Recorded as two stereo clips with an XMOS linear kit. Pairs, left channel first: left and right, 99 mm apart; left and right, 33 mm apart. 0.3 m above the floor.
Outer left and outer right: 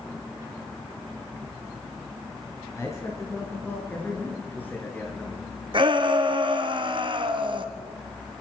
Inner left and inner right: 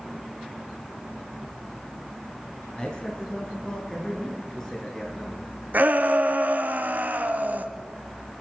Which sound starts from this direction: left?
A man speaking, at 2.8 s.